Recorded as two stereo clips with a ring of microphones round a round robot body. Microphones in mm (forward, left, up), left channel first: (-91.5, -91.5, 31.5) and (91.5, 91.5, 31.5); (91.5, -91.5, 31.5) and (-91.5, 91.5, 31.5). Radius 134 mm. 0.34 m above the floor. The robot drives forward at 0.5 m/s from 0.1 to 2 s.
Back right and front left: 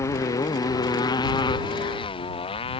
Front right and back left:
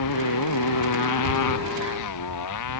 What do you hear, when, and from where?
0.0 s a motorcycle: 55° right; by 2.8 s 65° right